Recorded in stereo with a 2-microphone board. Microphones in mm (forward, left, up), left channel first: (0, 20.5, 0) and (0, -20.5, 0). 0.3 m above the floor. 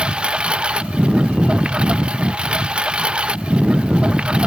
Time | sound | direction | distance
0.0 | a lawn mower | 25° right (ahead or behind) | ?